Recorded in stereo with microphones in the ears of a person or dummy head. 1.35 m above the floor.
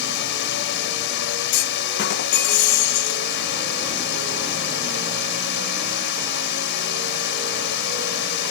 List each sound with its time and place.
0.0 s a drone: 55° left (ahead or behind)
1.5 s a clunk: 50° left (ahead or behind)